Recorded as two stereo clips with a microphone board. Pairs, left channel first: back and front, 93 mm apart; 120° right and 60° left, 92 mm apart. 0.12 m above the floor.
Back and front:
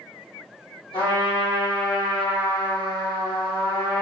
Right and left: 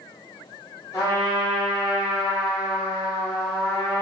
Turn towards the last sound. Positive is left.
turn(degrees=-175)